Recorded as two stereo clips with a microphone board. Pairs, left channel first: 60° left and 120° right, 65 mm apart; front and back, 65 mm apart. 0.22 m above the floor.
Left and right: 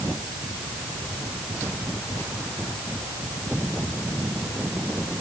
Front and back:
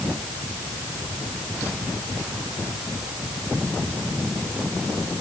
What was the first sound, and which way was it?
Only background noise.